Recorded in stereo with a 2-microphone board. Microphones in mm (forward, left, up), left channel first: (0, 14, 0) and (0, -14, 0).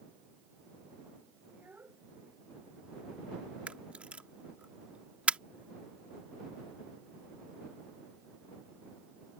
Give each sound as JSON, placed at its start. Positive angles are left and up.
{"t": 1.5, "sound": "a child speaking", "side_deg": -85}
{"t": 3.7, "sound": "a camera shutter", "side_deg": -45}